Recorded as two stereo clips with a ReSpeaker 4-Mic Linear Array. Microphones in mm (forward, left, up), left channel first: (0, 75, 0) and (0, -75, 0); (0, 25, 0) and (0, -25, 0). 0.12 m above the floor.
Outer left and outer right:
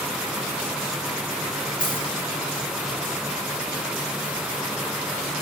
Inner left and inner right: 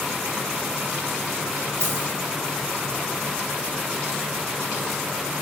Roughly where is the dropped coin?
Right.